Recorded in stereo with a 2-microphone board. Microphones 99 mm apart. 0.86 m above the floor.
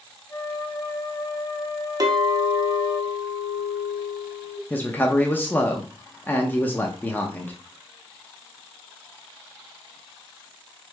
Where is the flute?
30° left (ahead or behind), 3 m.